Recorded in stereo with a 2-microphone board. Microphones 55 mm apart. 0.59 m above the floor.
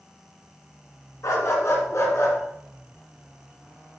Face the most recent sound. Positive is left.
turn(degrees=45)  # may be behind; listen again after turning